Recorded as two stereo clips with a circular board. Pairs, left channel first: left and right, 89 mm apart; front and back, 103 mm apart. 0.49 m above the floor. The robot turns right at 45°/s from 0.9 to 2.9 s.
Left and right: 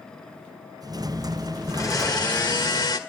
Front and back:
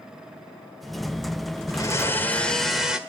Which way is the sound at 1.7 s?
45° left.